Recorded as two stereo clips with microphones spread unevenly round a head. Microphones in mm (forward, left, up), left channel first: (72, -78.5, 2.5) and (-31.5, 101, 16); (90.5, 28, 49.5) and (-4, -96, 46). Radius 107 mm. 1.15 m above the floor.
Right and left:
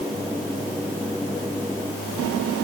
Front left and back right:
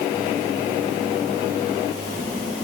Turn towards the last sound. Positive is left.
No sound to turn to.